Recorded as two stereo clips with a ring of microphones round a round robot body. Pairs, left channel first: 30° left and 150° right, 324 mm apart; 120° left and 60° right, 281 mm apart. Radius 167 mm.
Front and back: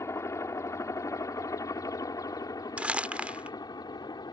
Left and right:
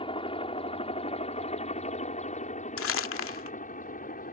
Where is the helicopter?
95° left.